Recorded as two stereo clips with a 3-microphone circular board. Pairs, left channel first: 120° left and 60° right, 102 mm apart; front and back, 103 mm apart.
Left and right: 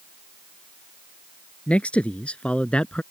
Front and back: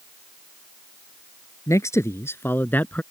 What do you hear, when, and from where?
1.7 s a man speaking: 45° left; by 3.0 s 55° left